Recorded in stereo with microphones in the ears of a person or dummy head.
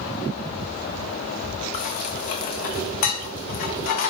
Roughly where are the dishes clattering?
Left.